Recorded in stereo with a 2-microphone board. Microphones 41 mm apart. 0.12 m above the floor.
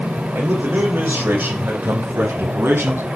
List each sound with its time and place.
0.3 s a man speaking: 50° right (ahead or behind), 7 m; by 3.1 s 65° right (ahead or behind), 5 m